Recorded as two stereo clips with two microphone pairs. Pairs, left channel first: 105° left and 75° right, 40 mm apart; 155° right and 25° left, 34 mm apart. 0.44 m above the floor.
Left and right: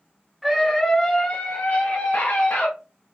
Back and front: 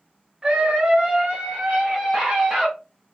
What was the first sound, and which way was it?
A scream, 10° left.